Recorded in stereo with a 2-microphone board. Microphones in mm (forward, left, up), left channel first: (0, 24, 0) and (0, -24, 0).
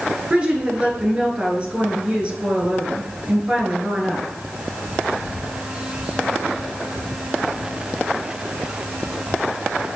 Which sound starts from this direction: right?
A woman speaking, at 0.3 s.